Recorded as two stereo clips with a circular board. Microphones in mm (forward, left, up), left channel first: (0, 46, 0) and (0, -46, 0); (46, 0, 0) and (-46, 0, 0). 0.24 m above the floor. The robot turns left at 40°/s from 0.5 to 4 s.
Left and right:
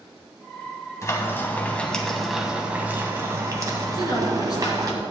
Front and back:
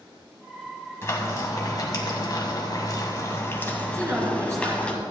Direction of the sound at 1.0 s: 50° left.